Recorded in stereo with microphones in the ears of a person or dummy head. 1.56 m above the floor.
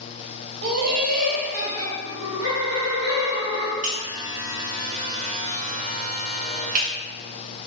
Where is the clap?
No clap in this recording.